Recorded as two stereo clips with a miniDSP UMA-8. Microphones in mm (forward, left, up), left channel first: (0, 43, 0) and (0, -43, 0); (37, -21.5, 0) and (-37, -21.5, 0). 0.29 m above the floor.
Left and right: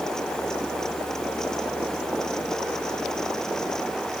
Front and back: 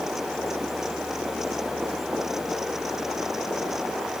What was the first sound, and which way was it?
Only background noise.